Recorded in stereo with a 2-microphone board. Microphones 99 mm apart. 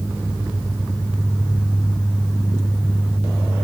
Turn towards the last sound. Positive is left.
No sound to turn to.